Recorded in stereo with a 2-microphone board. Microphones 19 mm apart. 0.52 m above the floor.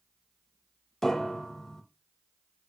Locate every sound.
1.0 s a piano: 25° left (ahead or behind), 1.0 m